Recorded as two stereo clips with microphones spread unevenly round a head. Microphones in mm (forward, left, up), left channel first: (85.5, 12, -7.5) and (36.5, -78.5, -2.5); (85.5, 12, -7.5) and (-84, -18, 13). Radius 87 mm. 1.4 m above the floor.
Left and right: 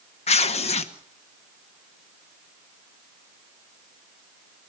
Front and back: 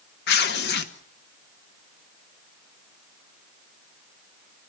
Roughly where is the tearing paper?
Ahead left.